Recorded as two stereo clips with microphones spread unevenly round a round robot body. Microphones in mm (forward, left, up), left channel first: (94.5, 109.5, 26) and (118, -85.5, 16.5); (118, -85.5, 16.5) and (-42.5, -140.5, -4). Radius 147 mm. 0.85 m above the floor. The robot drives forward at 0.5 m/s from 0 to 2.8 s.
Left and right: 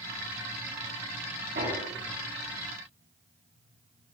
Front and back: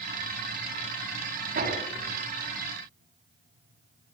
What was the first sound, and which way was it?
Hammering, 140° right.